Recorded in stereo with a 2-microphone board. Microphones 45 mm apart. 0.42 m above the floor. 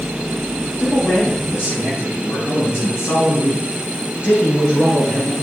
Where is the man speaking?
55° left (ahead or behind), 5 m; by 5.3 s 75° left (ahead or behind), 5 m.